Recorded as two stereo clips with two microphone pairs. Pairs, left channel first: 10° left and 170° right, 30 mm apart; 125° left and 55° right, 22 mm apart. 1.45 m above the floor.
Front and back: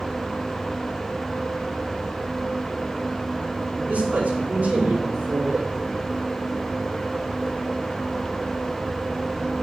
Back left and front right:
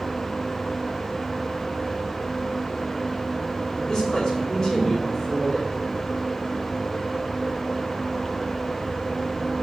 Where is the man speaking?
175° right, 5 m.